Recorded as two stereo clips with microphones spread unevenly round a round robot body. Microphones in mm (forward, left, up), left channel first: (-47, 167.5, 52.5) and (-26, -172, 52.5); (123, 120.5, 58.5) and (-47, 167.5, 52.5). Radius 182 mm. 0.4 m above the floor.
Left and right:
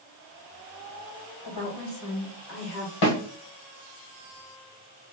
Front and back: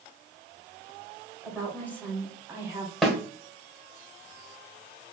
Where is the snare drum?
75° left, 1.3 m.